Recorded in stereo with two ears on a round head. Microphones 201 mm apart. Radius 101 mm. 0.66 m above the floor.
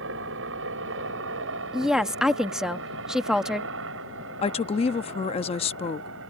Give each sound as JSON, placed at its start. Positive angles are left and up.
{"t": 0.0, "sound": "a helicopter", "side_deg": -60}
{"t": 1.7, "sound": "a woman speaking", "side_deg": 0}
{"t": 4.4, "sound": "a woman speaking", "side_deg": 25}